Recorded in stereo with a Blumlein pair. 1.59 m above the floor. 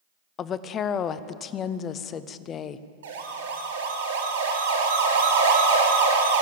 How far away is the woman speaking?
About 0.6 m.